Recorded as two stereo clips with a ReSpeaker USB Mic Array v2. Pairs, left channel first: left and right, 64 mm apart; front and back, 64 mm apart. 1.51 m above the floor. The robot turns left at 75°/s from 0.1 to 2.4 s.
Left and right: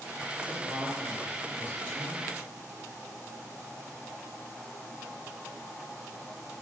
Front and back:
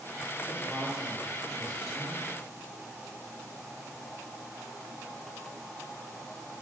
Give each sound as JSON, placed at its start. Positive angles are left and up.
{"t": 0.5, "sound": "a woman speaking", "azimuth_deg": 75, "distance_m": 1.5}